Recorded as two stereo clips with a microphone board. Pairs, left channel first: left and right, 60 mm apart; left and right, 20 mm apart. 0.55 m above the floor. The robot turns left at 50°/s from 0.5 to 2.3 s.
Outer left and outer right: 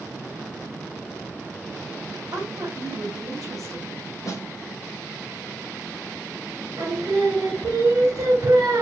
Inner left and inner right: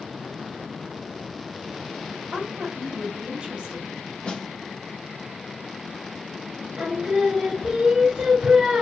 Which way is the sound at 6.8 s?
65° right (ahead or behind).